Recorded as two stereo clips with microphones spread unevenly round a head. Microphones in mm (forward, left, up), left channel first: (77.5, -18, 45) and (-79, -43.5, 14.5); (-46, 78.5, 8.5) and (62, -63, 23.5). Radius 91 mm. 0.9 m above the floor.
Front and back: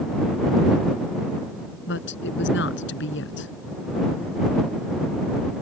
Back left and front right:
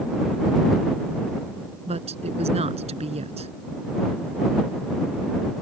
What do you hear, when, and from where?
1.9 s a woman speaking: 5° left